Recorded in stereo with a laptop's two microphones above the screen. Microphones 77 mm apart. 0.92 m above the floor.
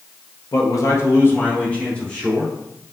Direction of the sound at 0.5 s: 50° left (ahead or behind).